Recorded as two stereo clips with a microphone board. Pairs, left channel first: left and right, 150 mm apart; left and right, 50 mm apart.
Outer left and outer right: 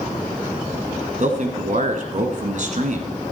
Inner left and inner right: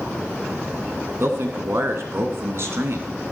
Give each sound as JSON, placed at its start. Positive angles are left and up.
{"t": 1.2, "sound": "a man speaking", "side_deg": -60, "distance_m": 2.0}